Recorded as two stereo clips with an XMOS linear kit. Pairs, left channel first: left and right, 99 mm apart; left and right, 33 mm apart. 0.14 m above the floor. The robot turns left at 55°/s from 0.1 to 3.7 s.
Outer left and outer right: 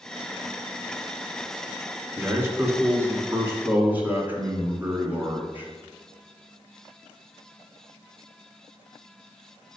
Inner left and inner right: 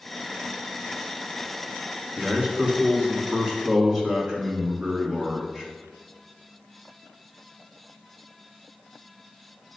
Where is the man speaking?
20° right (ahead or behind), 1.5 m.